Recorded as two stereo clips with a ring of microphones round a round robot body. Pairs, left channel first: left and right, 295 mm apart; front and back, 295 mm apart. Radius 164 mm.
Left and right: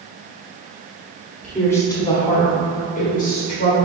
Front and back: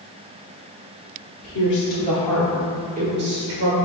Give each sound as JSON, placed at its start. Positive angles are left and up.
{"t": 1.4, "sound": "a woman speaking", "azimuth_deg": 5, "distance_m": 1.3}